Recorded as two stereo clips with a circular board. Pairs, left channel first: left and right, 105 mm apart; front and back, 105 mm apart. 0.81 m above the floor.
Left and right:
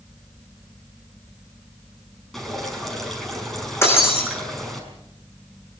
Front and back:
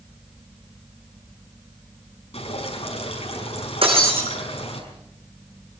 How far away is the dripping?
About 5.5 m.